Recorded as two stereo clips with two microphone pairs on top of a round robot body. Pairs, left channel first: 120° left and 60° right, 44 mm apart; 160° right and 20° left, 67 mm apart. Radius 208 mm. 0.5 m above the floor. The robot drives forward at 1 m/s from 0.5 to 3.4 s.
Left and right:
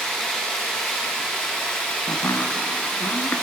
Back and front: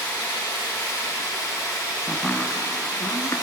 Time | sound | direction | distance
0.0 | running water | 165° right | 4 m
2.1 | chopping | 105° left | 0.7 m